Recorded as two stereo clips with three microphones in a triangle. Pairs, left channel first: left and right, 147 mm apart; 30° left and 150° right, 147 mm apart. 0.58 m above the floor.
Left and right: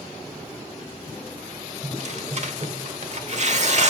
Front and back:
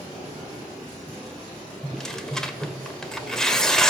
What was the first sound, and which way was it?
Tearing paper, 55° right.